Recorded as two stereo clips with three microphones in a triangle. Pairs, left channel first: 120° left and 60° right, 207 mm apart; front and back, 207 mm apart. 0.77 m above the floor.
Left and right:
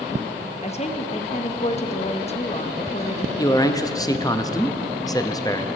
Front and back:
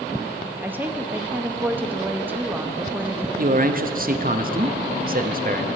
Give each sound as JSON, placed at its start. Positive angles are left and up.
{"t": 0.6, "sound": "a woman speaking", "azimuth_deg": 105, "distance_m": 0.8}
{"t": 3.4, "sound": "a man speaking", "azimuth_deg": -175, "distance_m": 0.7}